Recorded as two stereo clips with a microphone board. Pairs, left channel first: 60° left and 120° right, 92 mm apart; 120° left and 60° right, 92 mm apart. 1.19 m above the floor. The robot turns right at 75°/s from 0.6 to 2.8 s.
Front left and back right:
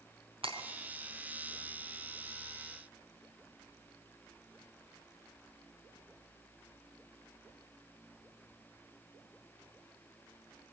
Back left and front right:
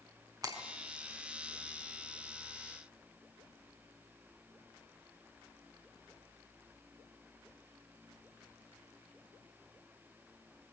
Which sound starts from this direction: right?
Breaking glass, at 0.4 s.